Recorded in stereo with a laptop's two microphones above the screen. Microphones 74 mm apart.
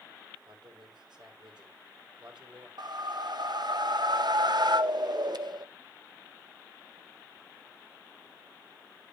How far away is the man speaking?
About 3.5 m.